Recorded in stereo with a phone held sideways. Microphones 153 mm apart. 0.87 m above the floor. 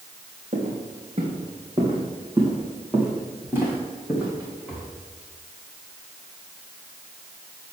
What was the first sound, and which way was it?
Footsteps, 50° right (ahead or behind).